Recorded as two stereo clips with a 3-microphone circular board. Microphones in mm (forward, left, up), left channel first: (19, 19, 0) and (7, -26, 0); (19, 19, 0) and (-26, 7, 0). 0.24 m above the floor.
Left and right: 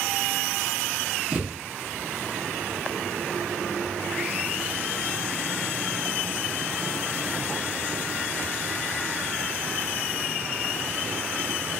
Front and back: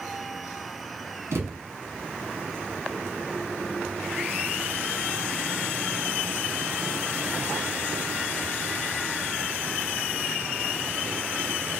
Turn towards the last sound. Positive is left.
turn(degrees=-170)